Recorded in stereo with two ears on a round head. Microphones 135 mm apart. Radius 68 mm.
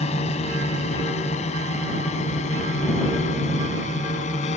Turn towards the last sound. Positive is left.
turn(degrees=50)  # may be behind; listen again after turning